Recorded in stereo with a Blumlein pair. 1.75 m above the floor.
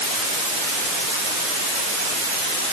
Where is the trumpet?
I don't hear a trumpet.